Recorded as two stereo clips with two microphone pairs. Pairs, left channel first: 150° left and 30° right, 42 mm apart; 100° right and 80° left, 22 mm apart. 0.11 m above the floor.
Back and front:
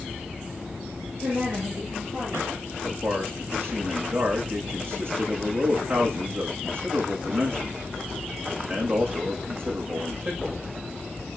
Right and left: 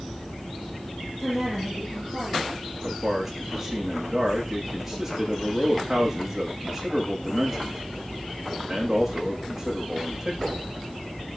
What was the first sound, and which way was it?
A woman speaking, straight ahead.